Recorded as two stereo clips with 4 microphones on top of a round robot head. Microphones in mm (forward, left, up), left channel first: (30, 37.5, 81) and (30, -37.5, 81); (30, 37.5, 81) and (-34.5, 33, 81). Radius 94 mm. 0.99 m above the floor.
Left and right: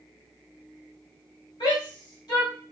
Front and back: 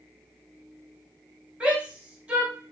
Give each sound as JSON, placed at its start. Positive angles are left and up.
{"t": 1.6, "sound": "a shout", "azimuth_deg": 110, "distance_m": 2.5}